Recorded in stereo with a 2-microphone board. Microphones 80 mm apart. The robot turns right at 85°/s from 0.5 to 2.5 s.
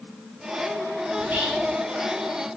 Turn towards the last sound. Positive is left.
turn(degrees=65)